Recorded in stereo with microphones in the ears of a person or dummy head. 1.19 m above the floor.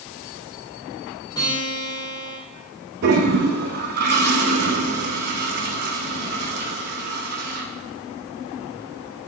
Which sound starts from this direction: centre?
A guitar, at 1.4 s.